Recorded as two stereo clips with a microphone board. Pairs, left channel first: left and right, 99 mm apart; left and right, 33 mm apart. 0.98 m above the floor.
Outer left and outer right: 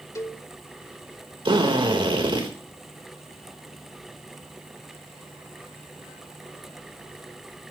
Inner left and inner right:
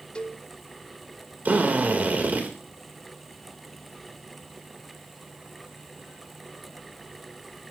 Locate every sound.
0.1 s a cowbell: 30° left (ahead or behind), 0.9 m
1.4 s a drill: 55° right (ahead or behind), 3.5 m